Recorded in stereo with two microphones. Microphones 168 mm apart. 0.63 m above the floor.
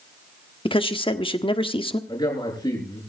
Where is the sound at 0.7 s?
30° left (ahead or behind), 1.4 m.